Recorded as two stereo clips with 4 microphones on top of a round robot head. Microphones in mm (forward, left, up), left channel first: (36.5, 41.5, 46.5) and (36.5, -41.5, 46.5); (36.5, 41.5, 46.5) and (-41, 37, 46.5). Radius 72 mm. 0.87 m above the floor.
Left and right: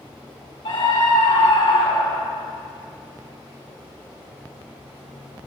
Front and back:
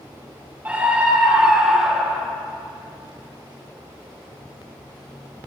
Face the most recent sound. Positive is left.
turn(degrees=95)